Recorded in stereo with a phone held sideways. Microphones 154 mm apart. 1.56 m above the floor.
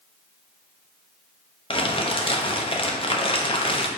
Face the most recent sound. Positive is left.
turn(degrees=35)  # may be behind; listen again after turning